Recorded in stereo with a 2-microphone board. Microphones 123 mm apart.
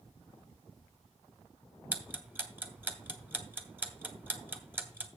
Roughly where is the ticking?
Centre.